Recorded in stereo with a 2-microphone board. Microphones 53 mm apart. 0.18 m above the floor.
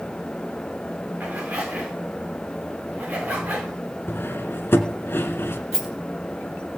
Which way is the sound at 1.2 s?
30° right (ahead or behind).